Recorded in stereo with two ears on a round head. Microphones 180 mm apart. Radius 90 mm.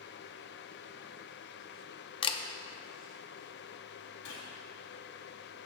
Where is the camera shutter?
25° left (ahead or behind), 0.6 m.